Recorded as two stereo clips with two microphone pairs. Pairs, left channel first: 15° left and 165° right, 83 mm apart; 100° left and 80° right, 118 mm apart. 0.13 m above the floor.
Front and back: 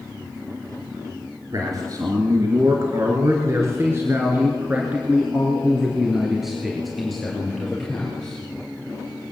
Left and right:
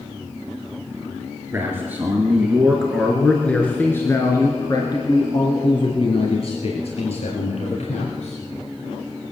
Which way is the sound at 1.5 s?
145° right.